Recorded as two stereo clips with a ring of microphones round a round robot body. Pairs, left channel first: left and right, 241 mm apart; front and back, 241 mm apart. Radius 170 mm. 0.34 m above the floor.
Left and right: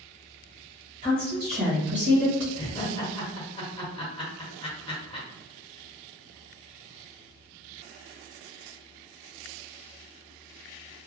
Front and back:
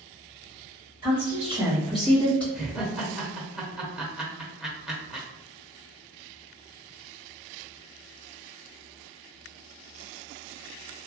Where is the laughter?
95° left, 1.3 m.